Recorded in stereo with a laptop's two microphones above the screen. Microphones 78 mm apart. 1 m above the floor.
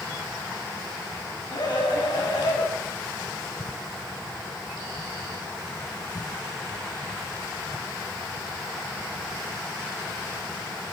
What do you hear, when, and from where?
1.5 s a scream: 70° left (ahead or behind), 8 m